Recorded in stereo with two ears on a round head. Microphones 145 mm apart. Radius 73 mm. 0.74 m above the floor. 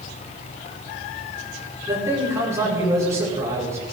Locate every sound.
1.9 s a man speaking: 20° right (ahead or behind), 8.5 m